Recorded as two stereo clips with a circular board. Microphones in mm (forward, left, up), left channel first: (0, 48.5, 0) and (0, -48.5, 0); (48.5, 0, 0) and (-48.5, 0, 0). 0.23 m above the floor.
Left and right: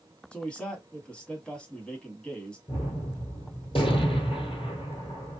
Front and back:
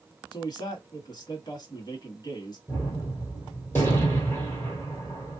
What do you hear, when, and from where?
0.3 s a man speaking: 15° left, 1.5 m
2.7 s a gunshot: 70° left, 1.7 m